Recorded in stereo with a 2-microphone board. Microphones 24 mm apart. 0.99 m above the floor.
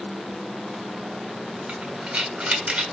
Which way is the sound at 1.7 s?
45° right (ahead or behind).